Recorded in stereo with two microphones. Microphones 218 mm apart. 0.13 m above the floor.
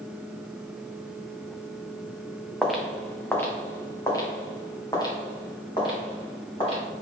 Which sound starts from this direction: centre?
Footsteps, at 2.6 s.